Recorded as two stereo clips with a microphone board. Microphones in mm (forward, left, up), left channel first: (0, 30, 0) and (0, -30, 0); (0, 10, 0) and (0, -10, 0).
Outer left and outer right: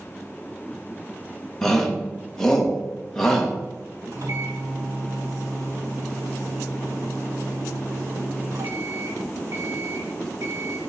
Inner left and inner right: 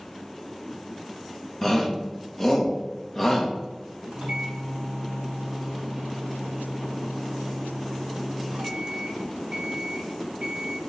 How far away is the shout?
About 1.4 m.